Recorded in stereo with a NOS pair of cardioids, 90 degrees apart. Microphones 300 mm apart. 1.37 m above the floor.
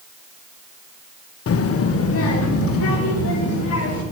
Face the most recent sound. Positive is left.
turn(degrees=50)